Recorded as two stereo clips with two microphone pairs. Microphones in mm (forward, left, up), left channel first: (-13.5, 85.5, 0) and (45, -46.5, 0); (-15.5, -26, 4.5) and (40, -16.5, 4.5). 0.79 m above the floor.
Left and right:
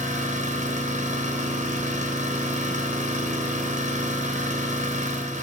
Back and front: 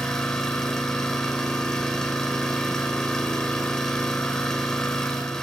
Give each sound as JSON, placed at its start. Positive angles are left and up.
{"t": 0.0, "sound": "an engine running", "azimuth_deg": -90, "distance_m": 3.0}